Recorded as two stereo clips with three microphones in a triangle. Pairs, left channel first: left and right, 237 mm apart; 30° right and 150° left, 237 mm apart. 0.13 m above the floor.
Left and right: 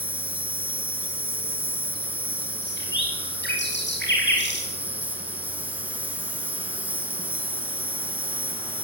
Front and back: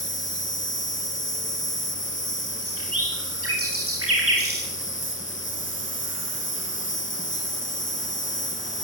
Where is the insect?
10° right, 2.5 m.